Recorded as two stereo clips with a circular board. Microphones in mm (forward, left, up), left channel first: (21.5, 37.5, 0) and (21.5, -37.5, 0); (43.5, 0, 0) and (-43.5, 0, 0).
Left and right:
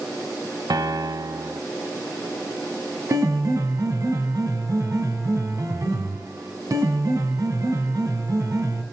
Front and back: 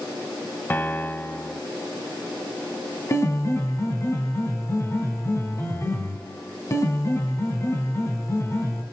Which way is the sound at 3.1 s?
50° right.